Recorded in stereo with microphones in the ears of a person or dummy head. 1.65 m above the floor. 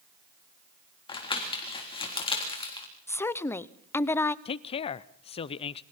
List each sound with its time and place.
1.1 s crumpling: 30° left (ahead or behind), 3.5 m
3.1 s a woman speaking: 15° left (ahead or behind), 0.7 m
4.5 s a man speaking: 35° left (ahead or behind), 0.6 m